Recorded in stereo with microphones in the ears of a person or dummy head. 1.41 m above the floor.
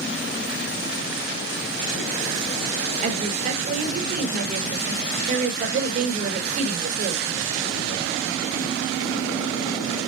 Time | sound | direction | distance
3.0 | a woman speaking | 40° right (ahead or behind) | 4.5 m